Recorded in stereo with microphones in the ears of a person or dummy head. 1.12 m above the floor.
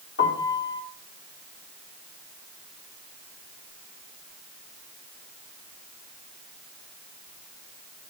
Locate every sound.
0.2 s a piano: 60° left (ahead or behind), 1.8 m